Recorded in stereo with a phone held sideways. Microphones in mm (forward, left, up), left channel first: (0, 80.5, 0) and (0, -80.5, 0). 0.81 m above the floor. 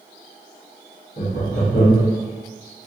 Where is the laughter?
65° left (ahead or behind), 1.3 m.